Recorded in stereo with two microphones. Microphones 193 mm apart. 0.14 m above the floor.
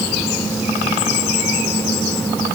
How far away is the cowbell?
No cowbell in this recording.